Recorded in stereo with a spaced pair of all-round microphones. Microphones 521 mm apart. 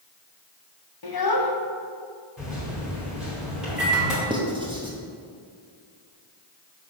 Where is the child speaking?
45° left (ahead or behind), 0.8 m.